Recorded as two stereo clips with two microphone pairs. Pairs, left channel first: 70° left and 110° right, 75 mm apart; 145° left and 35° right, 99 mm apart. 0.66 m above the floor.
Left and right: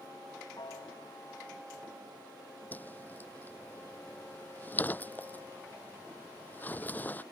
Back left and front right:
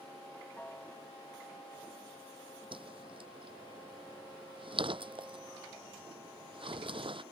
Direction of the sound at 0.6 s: 70° left.